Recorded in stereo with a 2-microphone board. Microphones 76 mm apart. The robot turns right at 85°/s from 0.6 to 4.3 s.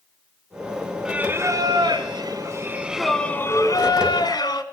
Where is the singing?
170° right, 1.3 m; by 4.6 s 105° left, 1.3 m.